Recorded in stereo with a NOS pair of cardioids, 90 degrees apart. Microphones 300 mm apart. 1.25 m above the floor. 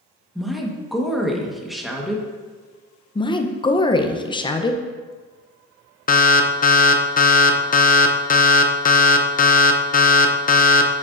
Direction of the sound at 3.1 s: 15° left.